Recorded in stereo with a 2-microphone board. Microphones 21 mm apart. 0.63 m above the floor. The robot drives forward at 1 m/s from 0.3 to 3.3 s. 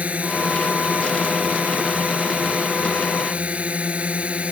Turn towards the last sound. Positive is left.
turn(degrees=-65)  # may be behind; listen again after turning